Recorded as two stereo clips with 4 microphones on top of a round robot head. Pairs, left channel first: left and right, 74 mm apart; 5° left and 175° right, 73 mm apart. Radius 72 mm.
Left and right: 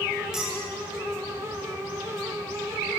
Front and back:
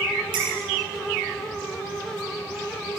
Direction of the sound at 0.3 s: 170° right.